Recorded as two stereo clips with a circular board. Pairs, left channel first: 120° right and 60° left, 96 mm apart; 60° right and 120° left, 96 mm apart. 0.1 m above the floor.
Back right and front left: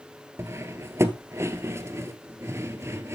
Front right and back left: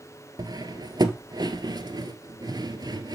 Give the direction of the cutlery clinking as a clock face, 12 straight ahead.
8 o'clock.